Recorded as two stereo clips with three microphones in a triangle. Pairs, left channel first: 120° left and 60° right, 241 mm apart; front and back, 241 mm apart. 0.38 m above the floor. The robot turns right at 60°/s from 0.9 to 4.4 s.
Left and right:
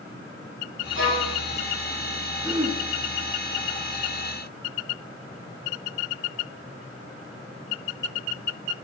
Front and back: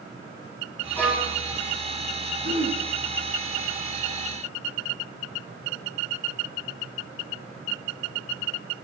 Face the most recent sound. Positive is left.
turn(degrees=-25)